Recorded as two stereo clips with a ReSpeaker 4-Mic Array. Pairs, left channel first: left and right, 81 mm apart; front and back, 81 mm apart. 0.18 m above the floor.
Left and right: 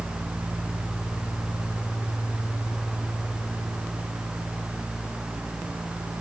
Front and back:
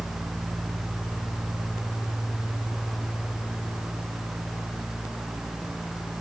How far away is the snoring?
No snoring in this recording.